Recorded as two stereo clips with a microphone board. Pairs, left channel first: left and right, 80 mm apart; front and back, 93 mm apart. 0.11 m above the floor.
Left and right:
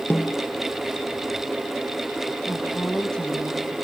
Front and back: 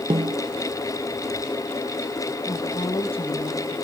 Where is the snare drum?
160° left, 0.9 m.